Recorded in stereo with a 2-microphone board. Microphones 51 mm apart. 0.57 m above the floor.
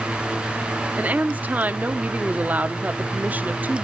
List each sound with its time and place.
0.9 s a woman speaking: 30° right (ahead or behind), 0.7 m